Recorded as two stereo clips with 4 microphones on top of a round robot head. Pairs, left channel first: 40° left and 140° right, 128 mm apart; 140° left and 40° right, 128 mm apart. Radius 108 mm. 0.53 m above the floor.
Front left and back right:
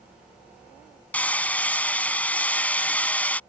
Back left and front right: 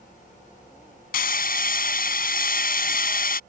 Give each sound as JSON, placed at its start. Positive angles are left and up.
{"t": 1.1, "sound": "hammering", "azimuth_deg": 120}